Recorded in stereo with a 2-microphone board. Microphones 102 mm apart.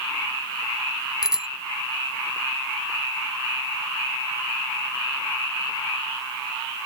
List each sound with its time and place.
1.2 s a bicycle bell: 5° right (ahead or behind)